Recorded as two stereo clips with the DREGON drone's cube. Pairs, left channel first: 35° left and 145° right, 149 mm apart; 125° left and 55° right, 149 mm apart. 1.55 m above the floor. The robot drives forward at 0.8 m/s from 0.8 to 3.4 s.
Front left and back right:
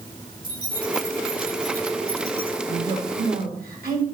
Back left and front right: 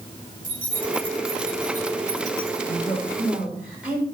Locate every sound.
0.4 s keys jangling: 85° right, 5 m; by 2.6 s 100° right, 5.5 m
2.7 s a woman speaking: 135° right, 7 m; by 4.0 s 140° right, 7.5 m